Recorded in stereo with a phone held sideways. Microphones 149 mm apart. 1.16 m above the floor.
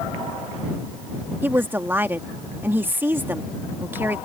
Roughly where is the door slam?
I don't hear a door slam.